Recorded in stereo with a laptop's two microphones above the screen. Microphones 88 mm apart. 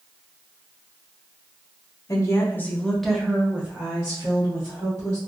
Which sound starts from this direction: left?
A woman speaking, at 2.1 s.